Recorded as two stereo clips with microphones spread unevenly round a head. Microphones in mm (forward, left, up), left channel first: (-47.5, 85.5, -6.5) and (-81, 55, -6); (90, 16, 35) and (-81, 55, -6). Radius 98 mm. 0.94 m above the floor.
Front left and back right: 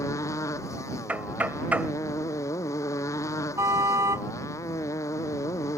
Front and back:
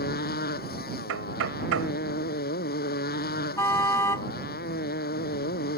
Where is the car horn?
90° right.